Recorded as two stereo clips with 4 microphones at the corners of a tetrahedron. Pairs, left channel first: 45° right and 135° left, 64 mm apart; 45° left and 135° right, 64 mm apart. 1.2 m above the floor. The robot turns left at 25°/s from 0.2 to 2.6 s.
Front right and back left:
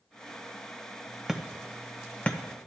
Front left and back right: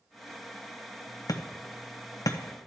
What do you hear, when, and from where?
1.3 s hammering: 50° left, 0.7 m; by 2.4 s 25° left, 0.7 m